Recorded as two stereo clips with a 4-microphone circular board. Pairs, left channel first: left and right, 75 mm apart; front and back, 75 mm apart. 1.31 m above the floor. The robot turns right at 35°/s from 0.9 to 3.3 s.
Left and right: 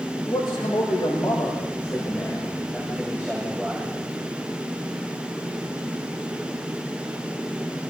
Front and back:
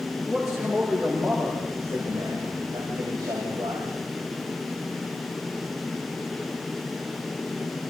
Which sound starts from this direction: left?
A man speaking, at 0.2 s.